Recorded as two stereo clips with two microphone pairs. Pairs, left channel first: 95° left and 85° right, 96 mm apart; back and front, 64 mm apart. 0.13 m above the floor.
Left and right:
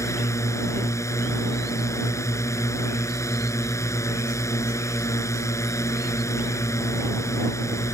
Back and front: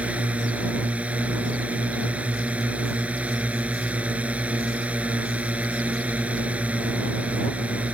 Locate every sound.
0.0 s a drone: 55° left